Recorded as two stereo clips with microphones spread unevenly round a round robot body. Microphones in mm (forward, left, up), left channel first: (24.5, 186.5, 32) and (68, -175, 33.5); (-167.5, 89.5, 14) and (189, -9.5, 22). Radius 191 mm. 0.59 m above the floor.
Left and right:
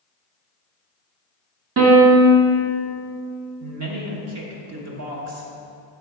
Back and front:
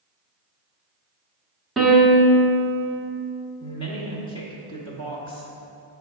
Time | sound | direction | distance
1.8 | a piano | 105° right | 0.9 m
3.6 | a woman speaking | 120° right | 1.0 m